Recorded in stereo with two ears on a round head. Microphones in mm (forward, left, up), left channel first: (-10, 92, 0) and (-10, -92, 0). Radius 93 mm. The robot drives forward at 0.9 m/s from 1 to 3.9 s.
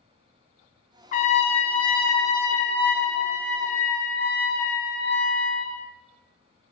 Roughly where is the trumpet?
Left.